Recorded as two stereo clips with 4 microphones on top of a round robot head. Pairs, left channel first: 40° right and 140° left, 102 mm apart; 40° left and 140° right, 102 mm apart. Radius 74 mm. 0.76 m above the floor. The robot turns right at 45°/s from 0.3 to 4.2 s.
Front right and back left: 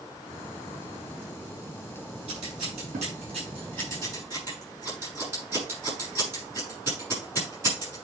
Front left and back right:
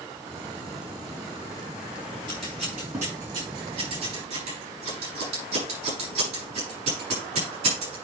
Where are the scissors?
120° left, 6.5 m; by 8.0 s 150° right, 6.5 m.